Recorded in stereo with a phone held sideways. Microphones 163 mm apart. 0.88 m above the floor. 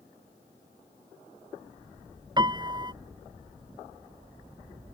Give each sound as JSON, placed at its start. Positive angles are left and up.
{"t": 2.4, "sound": "a piano", "side_deg": -25}